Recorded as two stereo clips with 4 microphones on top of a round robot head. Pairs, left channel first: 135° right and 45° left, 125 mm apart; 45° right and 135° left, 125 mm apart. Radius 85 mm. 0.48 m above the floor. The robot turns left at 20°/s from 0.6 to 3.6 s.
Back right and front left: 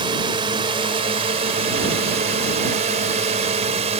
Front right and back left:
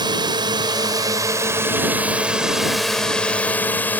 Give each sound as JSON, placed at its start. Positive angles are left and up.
{"t": 0.0, "sound": "a drone", "azimuth_deg": 90}